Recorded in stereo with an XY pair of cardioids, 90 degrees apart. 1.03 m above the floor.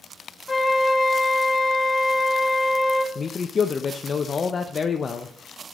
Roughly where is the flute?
Ahead left.